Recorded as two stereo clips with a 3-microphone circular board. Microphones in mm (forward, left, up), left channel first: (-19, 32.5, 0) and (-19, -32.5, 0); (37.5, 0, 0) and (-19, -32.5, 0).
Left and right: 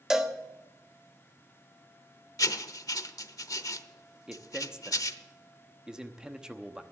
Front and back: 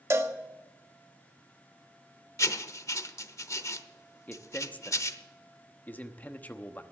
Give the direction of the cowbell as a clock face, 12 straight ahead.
6 o'clock.